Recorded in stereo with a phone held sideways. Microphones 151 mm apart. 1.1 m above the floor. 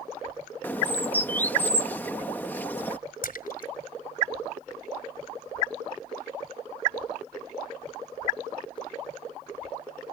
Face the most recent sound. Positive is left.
turn(degrees=70)  # may be behind; listen again after turning